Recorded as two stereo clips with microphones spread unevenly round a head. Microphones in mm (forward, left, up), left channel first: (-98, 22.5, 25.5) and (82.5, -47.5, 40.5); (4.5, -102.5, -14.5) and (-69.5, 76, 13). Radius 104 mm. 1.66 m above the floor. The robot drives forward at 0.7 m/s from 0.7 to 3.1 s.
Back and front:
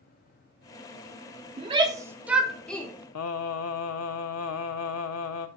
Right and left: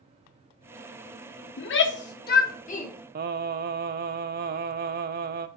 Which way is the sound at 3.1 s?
150° left.